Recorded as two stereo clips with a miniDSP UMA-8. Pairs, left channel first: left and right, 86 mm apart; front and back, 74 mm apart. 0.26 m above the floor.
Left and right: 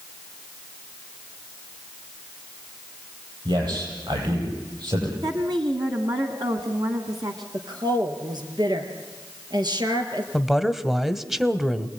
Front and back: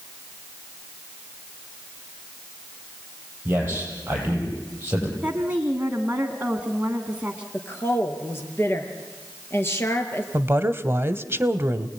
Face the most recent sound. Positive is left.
turn(degrees=-175)